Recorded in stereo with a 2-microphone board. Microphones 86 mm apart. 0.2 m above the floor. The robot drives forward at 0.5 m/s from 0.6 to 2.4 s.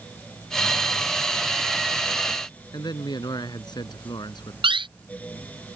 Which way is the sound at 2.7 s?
55° left (ahead or behind).